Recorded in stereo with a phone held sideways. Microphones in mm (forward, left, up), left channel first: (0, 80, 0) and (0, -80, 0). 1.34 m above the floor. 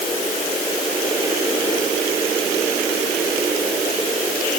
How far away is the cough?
No cough in this recording.